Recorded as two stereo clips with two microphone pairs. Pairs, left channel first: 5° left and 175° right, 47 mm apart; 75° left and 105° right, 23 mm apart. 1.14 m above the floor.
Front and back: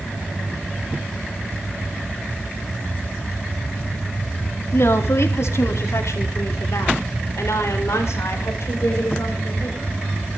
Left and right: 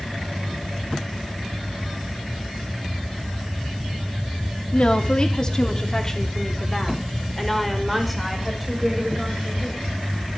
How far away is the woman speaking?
About 3 m.